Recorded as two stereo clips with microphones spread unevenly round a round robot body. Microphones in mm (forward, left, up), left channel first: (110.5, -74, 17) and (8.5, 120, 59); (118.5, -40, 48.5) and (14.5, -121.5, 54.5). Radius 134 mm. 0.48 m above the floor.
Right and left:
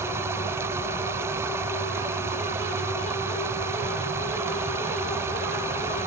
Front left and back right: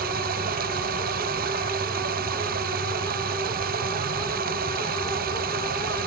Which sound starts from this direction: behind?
Running water, at 0.0 s.